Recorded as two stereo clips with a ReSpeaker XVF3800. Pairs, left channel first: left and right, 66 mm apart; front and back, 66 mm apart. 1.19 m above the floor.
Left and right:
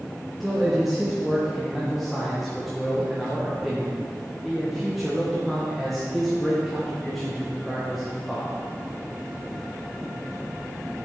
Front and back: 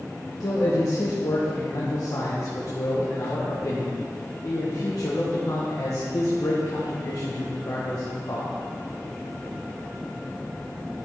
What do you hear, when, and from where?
0.4 s a man speaking: straight ahead, 1.2 m